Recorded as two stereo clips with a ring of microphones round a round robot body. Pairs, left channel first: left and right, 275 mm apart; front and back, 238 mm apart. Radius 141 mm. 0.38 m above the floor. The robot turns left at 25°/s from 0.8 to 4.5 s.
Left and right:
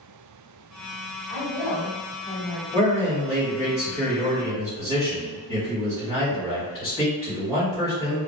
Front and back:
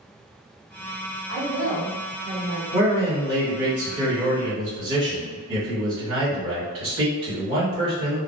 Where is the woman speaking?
155° right, 1.9 m; by 2.6 s 175° left, 1.9 m.